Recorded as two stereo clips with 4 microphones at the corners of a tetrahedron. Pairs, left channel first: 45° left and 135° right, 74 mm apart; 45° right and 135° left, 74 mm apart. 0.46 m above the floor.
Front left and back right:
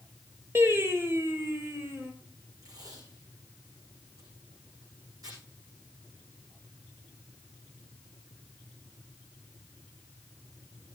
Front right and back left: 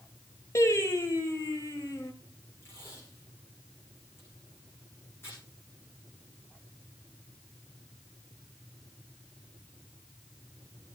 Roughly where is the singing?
Right.